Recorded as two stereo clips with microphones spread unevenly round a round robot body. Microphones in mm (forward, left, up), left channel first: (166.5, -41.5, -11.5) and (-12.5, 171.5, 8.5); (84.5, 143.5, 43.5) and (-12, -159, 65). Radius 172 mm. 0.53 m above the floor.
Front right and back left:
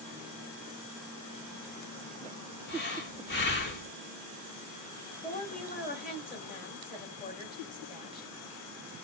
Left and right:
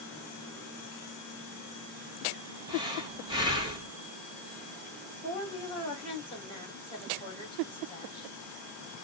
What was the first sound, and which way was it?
Breathing, 30° right.